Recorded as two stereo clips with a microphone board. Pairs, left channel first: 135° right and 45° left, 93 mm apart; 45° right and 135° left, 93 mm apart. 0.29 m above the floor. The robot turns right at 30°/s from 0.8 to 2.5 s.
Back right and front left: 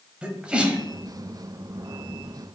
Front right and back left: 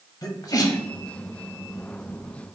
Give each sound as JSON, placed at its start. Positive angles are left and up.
{"t": 0.2, "sound": "a sneeze", "azimuth_deg": -30, "distance_m": 1.2}